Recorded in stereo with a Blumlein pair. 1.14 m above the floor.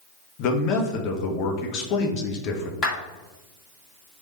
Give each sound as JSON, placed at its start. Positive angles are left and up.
{"t": 0.4, "sound": "a man speaking", "azimuth_deg": 40, "distance_m": 1.0}
{"t": 2.8, "sound": "a clap", "azimuth_deg": 25, "distance_m": 2.5}